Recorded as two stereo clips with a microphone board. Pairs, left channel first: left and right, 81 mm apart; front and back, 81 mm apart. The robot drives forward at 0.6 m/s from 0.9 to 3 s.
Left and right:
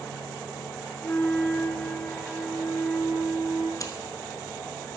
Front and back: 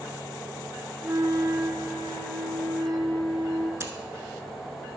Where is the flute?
140° left, 0.6 m; by 3.7 s 170° left, 1.6 m.